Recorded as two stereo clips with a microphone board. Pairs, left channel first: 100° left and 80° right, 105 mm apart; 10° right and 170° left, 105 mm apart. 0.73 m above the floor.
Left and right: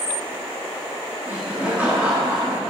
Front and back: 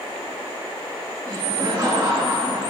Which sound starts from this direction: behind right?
Laughter, at 1.3 s.